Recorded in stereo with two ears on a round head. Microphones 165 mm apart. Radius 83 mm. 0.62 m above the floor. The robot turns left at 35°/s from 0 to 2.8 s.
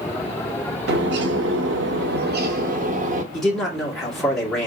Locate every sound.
0.9 s a bird: 65° right, 0.7 m; by 3.2 s 135° right, 0.7 m
3.3 s a man speaking: 5° left (ahead or behind), 1.6 m